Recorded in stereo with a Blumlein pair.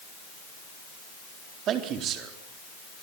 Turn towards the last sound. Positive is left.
turn(degrees=-30)